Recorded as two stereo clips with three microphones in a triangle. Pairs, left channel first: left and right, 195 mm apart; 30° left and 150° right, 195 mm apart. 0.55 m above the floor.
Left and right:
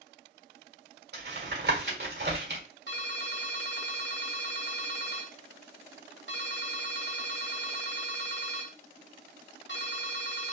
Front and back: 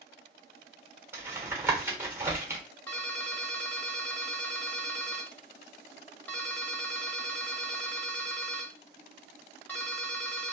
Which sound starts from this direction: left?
A ringtone, at 2.9 s.